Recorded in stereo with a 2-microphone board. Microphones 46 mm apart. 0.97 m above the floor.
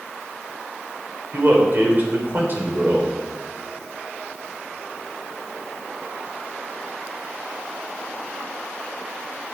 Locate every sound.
1.3 s a man speaking: 45° right (ahead or behind), 3.5 m